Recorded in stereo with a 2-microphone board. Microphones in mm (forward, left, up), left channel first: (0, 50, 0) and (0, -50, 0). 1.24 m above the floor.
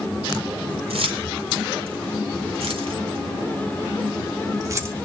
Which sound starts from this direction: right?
Keys jangling, at 0.9 s.